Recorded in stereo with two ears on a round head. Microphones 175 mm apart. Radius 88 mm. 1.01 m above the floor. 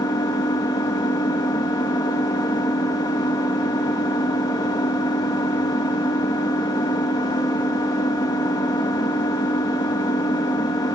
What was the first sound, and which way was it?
An engine running, 20° left (ahead or behind).